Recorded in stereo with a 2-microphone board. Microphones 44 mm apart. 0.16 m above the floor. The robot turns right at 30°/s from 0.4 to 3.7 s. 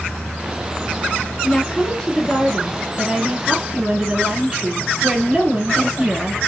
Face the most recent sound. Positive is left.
turn(degrees=-155)